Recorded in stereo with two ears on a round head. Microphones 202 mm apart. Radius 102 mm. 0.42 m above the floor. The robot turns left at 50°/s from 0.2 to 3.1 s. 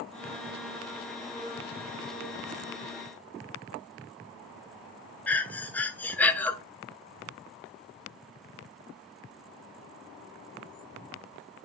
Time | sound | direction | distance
5.3 | breathing | 5° left (ahead or behind) | 0.6 m